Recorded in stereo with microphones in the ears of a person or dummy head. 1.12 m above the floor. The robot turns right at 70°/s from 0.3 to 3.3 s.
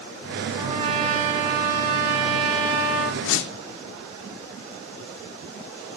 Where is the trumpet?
Straight behind, 5 m; by 3.1 s straight ahead, 5 m.